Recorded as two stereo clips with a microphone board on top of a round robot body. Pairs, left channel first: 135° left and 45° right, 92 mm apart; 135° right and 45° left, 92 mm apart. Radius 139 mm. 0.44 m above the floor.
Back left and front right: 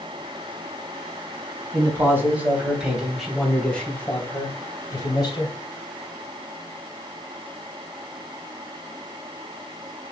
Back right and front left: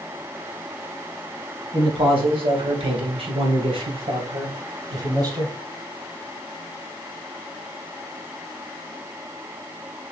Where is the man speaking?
15° left, 4 m; by 5.5 s 95° left, 3.5 m.